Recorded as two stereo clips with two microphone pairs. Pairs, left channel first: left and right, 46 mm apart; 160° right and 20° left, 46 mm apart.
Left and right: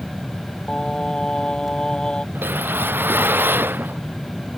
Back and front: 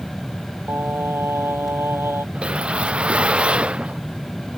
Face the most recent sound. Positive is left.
turn(degrees=-45)